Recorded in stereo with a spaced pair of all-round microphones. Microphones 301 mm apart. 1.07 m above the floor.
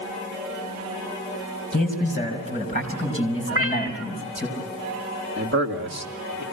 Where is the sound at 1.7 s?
30° left (ahead or behind), 5.5 m; by 4.5 s 15° left (ahead or behind), 6 m.